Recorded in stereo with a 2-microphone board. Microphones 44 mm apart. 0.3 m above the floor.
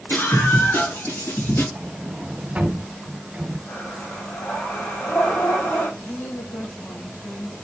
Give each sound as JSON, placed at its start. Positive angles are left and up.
{"t": 0.1, "sound": "a scream", "side_deg": 55, "distance_m": 3.5}
{"t": 1.8, "sound": "a sliding door", "side_deg": -30, "distance_m": 1.7}
{"t": 3.7, "sound": "breathing", "side_deg": 60, "distance_m": 6.0}
{"t": 6.0, "sound": "a woman speaking", "side_deg": 70, "distance_m": 6.0}